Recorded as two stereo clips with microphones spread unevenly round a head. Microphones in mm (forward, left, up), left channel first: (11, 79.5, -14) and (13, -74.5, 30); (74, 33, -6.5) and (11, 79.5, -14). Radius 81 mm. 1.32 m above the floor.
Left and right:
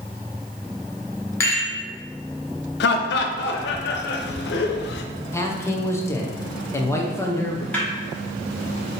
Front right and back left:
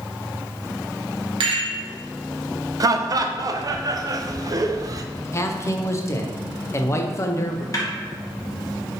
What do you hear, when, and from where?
1.4 s a rattle: 160° left, 0.8 m
2.8 s laughter: 100° left, 0.5 m
5.3 s a man speaking: 20° left, 0.7 m
7.7 s a snare drum: 5° left, 1.4 m